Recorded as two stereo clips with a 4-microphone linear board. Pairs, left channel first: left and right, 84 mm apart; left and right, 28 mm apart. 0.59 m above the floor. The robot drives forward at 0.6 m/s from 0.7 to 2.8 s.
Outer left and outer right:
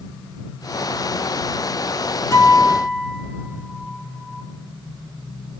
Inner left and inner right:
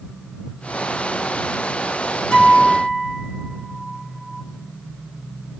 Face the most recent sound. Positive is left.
turn(degrees=40)  # may be behind; listen again after turning